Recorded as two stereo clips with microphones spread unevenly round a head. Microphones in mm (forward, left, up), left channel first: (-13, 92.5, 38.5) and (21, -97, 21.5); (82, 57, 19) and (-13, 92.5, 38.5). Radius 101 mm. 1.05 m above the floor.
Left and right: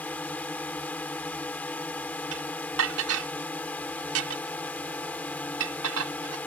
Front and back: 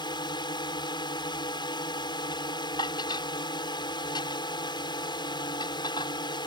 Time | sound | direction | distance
0.0 | a drone | 20° left | ?
2.3 | dishes clattering | 85° right | ?